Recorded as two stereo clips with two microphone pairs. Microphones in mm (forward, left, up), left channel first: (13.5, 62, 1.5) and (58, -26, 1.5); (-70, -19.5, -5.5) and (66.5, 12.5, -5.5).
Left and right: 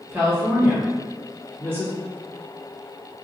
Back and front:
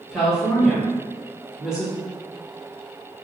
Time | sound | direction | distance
0.1 | a woman speaking | 65° right | 1.1 m